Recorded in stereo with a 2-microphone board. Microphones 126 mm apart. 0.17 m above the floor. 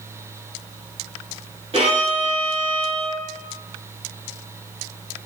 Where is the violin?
55° right (ahead or behind), 1.3 m.